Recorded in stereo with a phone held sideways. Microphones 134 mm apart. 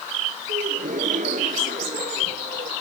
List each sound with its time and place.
0.5 s a gasp: 85° right